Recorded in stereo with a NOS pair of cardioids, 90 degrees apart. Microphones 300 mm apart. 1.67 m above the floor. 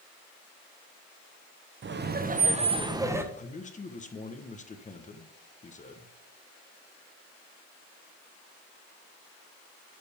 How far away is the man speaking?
About 1.3 m.